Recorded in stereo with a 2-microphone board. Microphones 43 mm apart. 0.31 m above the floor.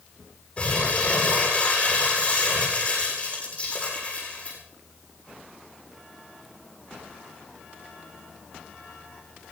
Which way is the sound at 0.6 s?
30° left (ahead or behind).